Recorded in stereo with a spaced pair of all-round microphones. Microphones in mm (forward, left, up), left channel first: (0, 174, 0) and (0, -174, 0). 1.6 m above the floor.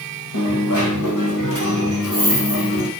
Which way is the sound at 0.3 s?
60° left (ahead or behind).